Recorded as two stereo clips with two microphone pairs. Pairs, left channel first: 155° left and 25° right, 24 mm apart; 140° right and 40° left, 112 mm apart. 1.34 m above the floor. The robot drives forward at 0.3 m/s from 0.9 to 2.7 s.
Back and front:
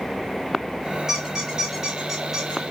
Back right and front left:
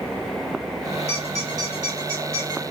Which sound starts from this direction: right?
A squeak, at 1.1 s.